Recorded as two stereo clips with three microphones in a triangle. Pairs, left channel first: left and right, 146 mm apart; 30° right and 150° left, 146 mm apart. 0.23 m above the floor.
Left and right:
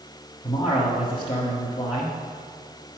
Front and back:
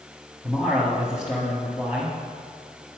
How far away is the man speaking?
About 1.6 m.